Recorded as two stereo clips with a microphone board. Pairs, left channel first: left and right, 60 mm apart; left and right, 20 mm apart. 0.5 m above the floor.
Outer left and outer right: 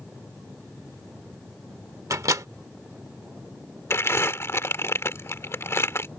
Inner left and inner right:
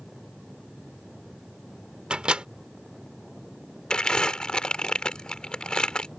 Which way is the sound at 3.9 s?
45° left (ahead or behind).